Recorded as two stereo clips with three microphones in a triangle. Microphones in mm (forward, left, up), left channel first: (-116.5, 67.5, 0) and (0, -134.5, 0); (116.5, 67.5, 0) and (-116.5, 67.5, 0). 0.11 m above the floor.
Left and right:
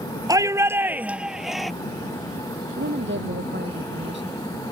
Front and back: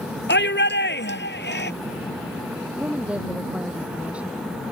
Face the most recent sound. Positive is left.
turn(degrees=-95)